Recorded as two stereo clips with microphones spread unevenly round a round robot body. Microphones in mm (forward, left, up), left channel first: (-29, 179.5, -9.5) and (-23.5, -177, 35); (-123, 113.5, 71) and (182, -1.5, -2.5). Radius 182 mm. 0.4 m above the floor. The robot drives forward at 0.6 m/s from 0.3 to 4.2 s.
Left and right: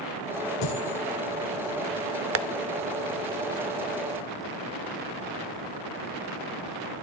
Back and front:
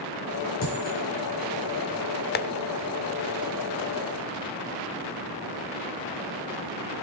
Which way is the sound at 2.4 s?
135° right.